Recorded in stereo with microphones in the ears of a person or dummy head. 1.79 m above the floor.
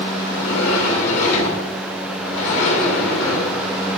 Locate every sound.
0.2 s a sliding door: 70° left (ahead or behind), 1.9 m